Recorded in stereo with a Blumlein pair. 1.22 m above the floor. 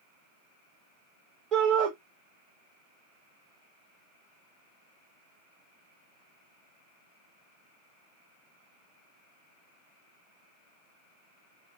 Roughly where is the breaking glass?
No breaking glass in this recording.